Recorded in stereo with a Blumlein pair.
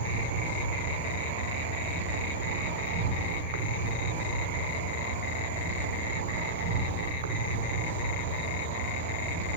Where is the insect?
55° right, 0.8 m.